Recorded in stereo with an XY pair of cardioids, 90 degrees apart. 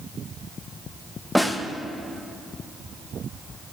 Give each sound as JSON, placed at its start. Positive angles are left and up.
{"t": 1.4, "sound": "a snare drum", "azimuth_deg": 10, "distance_m": 0.7}